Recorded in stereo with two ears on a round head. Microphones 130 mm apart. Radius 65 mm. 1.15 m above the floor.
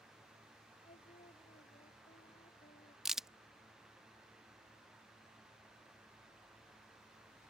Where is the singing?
45° left (ahead or behind).